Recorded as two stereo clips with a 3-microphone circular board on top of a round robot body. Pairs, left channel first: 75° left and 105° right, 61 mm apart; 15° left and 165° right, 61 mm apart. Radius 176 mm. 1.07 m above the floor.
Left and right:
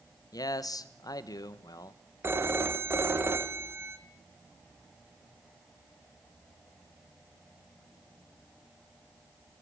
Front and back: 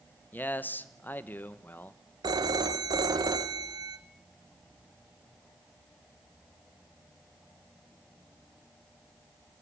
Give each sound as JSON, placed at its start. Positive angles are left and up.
{"t": 0.3, "sound": "a man speaking", "azimuth_deg": 75, "distance_m": 1.4}
{"t": 2.2, "sound": "a phone ringing", "azimuth_deg": -160, "distance_m": 1.2}